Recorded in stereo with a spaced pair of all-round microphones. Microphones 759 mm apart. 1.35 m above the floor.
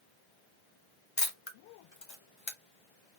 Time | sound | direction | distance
1.2 | a camera shutter | 40° left (ahead or behind) | 0.9 m